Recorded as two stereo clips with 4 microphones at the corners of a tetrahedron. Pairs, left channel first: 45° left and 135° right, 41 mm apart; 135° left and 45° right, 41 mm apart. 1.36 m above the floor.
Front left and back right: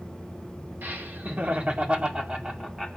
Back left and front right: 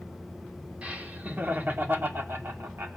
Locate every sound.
0.8 s laughter: 105° right, 2.5 m; by 3.0 s 50° right, 2.5 m